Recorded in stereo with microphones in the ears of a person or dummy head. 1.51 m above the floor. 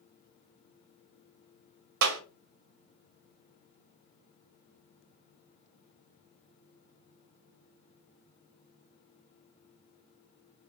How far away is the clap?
About 0.6 m.